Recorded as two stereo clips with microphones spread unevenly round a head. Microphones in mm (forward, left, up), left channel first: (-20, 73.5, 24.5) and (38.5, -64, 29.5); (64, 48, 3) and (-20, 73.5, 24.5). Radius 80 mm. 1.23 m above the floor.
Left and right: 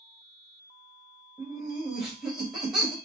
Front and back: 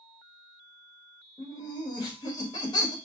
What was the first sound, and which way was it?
Laughter, 20° left.